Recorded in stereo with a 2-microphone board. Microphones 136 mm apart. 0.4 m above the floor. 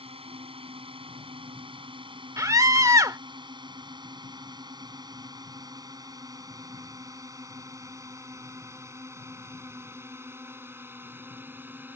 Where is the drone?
45° right (ahead or behind); by 12.0 s 15° right (ahead or behind).